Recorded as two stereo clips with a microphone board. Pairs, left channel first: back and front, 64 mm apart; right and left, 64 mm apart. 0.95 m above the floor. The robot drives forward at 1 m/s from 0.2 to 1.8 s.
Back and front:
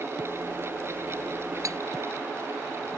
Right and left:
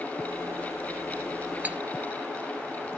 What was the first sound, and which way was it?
Cutlery clinking, 25° left.